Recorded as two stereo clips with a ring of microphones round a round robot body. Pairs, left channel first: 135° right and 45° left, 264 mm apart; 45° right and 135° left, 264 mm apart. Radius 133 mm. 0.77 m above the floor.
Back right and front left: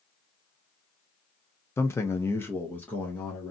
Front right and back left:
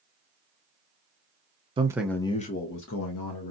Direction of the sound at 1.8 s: 160° left.